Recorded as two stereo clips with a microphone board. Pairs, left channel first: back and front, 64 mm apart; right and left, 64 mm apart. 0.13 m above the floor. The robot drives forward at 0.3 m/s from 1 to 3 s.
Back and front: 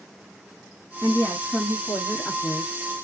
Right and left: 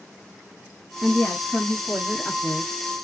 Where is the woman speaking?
170° right, 1.4 m.